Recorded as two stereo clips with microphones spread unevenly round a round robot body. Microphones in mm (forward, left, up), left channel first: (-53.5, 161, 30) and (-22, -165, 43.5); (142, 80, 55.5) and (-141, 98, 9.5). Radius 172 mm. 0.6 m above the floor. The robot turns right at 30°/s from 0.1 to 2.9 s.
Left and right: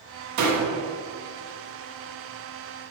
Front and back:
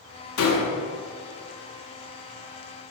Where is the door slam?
50° right, 1.4 m; by 0.7 s 40° right, 1.4 m.